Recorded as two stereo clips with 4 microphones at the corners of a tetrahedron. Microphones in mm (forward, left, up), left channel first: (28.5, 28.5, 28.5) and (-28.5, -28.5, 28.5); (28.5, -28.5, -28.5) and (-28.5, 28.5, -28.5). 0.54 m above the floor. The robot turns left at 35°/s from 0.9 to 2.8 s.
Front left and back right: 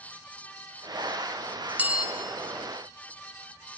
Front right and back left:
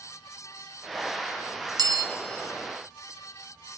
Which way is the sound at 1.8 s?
155° left.